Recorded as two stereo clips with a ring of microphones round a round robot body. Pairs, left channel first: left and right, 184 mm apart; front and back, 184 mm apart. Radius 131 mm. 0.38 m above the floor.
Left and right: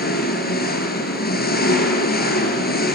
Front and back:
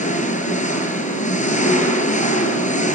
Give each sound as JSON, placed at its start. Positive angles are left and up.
{"t": 0.0, "sound": "an engine running", "azimuth_deg": 50, "distance_m": 5.5}